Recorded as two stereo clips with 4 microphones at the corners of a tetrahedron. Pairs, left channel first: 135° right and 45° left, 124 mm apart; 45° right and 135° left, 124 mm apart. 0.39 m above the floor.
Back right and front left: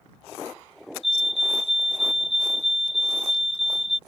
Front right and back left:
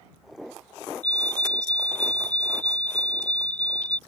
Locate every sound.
1.0 s a fire alarm: 120° right